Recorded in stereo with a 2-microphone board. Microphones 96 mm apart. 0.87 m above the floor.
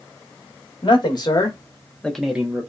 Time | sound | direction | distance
0.8 | a man speaking | 55° left (ahead or behind) | 1.1 m